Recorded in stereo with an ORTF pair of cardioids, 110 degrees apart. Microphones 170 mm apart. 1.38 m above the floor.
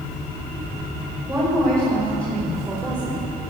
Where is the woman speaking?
15° right, 5 m.